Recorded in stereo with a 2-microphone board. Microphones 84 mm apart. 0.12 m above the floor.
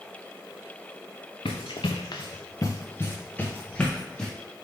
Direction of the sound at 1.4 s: 85° left.